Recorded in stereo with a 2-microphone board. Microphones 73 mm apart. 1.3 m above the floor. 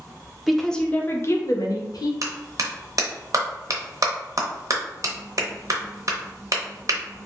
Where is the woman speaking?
5° right (ahead or behind), 0.6 m; by 2.1 s 70° left (ahead or behind), 0.8 m.